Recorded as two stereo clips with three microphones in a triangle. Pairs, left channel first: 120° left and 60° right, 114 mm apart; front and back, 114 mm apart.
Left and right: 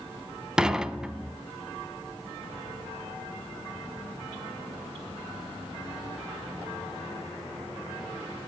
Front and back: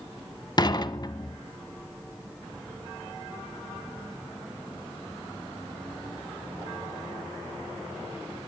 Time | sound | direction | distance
0.6 | dishes clattering | 20° left | 0.8 m